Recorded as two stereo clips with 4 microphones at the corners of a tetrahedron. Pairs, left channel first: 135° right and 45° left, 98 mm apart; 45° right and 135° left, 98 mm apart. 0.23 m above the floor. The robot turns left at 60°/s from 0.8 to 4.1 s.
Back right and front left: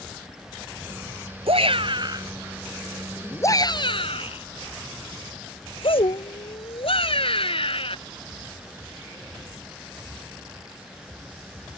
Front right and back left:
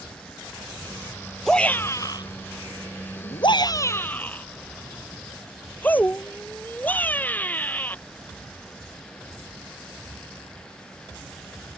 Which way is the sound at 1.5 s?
40° left.